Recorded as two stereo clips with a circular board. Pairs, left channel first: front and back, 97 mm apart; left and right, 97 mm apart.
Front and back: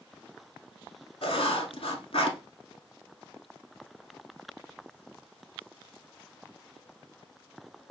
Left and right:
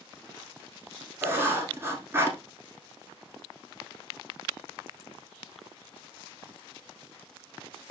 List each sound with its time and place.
1.2 s writing: 25° right, 0.9 m